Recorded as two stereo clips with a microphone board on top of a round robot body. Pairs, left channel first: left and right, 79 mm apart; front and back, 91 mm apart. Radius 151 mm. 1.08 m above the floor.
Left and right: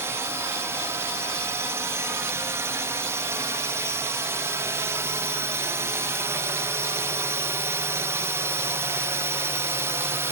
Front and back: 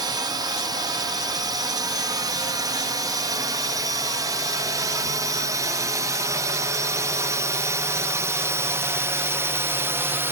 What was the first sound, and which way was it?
A drone, 145° right.